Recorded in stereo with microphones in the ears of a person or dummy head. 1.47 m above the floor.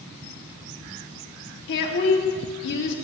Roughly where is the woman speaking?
Left.